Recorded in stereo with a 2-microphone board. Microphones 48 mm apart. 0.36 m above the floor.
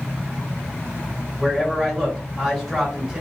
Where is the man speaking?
10° right (ahead or behind), 1.5 m.